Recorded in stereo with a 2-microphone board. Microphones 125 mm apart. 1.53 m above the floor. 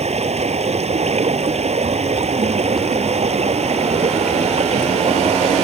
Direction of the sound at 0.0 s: 60° right (ahead or behind).